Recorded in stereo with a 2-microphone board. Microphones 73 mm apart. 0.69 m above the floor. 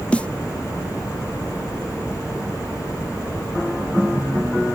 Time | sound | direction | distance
0.1 | a snare drum | 15° left (ahead or behind) | ?